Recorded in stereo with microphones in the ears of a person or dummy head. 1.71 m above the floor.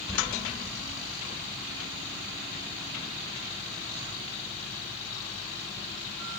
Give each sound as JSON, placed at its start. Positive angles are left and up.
{"t": 0.1, "sound": "a squeak", "side_deg": 0, "distance_m": 5.0}